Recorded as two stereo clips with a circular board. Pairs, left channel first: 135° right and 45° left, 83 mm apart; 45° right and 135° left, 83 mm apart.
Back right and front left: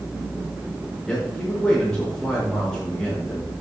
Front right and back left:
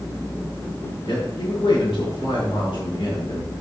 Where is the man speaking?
50° right, 4.5 m.